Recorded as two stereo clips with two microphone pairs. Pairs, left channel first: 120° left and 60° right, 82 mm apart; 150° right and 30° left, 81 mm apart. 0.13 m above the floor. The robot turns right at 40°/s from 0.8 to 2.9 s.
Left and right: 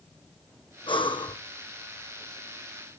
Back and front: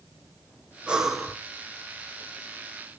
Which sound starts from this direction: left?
Breathing, at 0.9 s.